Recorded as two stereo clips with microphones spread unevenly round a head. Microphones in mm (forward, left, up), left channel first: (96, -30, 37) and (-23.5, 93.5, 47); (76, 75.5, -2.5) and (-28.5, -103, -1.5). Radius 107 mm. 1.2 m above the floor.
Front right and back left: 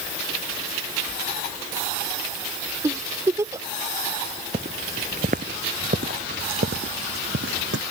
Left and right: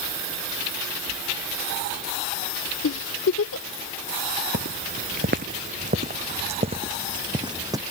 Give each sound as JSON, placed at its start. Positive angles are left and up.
{"t": 2.8, "sound": "a giggle", "azimuth_deg": 65}
{"t": 4.5, "sound": "footsteps", "azimuth_deg": -165}